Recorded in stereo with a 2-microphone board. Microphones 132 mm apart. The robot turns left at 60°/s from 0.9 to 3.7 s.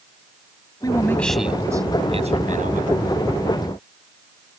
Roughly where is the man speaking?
Ahead left.